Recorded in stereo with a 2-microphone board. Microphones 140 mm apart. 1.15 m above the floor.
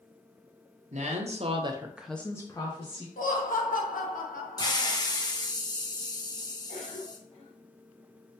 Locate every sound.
0.9 s a woman speaking: 55° right (ahead or behind), 1.0 m; by 3.1 s 40° left (ahead or behind), 1.1 m
3.2 s laughter: 80° left, 1.0 m
4.6 s a hiss: 30° left (ahead or behind), 0.6 m
6.7 s a cough: 45° left (ahead or behind), 2 m